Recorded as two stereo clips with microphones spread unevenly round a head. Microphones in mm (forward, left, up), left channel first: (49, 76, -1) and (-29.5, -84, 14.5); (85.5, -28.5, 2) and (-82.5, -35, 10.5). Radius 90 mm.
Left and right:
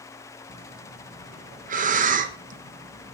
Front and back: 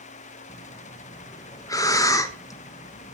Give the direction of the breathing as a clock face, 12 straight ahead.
2 o'clock.